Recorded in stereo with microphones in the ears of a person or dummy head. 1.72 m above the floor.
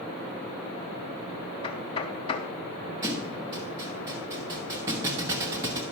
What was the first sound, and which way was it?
Knocking, 30° left (ahead or behind).